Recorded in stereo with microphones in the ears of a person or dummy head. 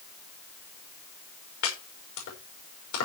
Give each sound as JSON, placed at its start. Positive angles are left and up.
{"t": 1.6, "sound": "chopping", "side_deg": 75, "distance_m": 6.0}